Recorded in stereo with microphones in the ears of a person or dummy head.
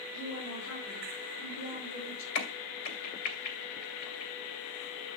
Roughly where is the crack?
Left.